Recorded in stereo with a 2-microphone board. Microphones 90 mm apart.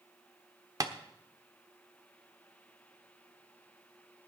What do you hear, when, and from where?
0.8 s tapping: 45° right (ahead or behind), 1.0 m